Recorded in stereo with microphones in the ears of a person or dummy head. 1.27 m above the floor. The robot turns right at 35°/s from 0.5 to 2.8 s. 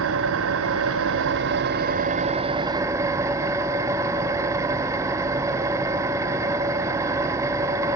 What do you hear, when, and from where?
0.0 s an engine running: 100° right, 0.8 m; by 8.0 s 20° right, 0.8 m